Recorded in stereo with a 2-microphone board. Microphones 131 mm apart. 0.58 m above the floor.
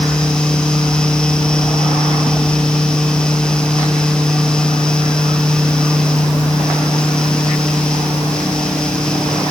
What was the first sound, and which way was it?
Only background noise.